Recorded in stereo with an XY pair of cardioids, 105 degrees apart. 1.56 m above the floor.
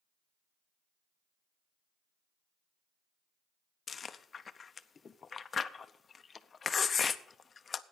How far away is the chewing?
About 0.6 m.